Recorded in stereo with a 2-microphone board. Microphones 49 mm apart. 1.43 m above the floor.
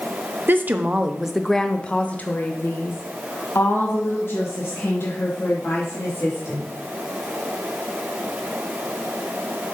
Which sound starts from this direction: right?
A woman speaking, at 0.5 s.